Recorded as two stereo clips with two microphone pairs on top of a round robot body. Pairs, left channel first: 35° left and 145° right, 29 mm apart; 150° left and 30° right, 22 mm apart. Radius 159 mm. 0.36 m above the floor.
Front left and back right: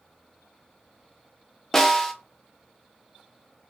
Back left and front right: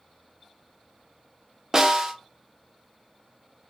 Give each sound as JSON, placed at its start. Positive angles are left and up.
{"t": 1.7, "sound": "a snare drum", "azimuth_deg": -60, "distance_m": 0.9}